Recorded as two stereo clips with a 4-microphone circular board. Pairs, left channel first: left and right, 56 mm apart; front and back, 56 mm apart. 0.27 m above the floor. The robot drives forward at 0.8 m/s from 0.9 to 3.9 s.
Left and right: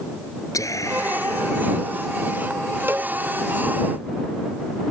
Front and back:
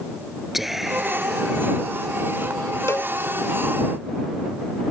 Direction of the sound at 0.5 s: 95° left.